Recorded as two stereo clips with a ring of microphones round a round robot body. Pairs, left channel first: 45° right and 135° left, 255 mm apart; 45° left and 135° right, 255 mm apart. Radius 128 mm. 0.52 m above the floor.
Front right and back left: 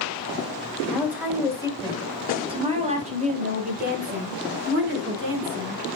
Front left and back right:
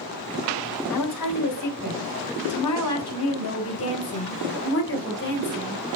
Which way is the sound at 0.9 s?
50° left.